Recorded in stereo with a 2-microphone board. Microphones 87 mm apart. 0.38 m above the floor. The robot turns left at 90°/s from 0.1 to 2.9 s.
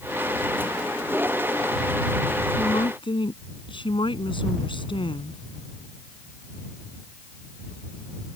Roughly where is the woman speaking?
Left.